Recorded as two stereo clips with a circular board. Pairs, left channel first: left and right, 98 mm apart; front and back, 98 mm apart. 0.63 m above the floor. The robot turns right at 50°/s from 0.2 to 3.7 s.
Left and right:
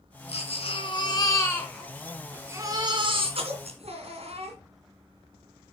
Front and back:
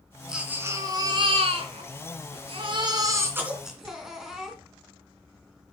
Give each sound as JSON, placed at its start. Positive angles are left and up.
{"t": 0.3, "sound": "a baby crying", "azimuth_deg": 95, "distance_m": 2.5}